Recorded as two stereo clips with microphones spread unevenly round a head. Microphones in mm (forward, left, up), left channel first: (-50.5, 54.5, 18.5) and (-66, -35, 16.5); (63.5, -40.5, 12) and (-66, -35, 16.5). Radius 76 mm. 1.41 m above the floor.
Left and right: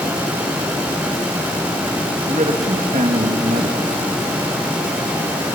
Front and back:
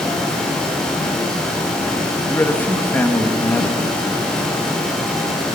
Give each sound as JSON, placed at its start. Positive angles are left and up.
{"t": 2.3, "sound": "a man speaking", "azimuth_deg": -80, "distance_m": 1.7}